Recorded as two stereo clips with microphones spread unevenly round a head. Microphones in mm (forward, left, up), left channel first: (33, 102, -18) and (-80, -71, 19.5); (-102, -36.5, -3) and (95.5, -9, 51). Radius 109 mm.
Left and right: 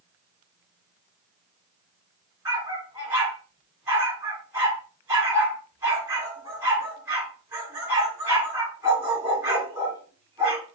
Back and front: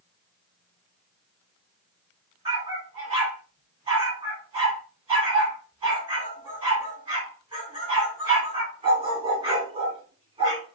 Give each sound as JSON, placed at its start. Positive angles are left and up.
{"t": 2.5, "sound": "a dog barking", "azimuth_deg": -50, "distance_m": 2.5}